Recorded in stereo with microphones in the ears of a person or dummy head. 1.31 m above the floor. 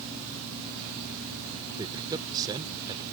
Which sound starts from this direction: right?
A man speaking, at 1.7 s.